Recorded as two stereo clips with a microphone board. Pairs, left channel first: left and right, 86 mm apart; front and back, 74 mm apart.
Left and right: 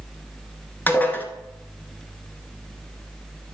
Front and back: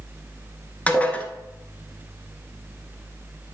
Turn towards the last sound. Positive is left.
turn(degrees=45)